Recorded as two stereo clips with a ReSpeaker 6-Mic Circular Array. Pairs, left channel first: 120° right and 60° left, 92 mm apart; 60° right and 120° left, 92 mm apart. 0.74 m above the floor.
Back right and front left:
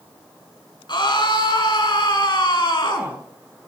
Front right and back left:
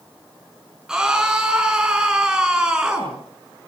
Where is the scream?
160° right, 7 m.